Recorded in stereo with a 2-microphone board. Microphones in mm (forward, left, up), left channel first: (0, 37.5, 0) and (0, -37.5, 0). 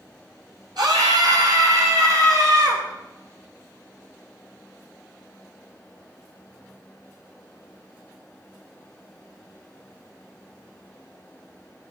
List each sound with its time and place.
0.8 s a scream: 70° right (ahead or behind), 4 m; by 2.8 s 55° right (ahead or behind), 6 m